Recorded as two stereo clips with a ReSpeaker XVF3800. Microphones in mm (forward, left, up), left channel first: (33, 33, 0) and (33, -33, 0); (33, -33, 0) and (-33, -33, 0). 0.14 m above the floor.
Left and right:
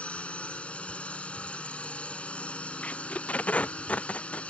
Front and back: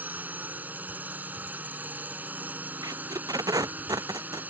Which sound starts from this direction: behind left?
A drone, at 0.0 s.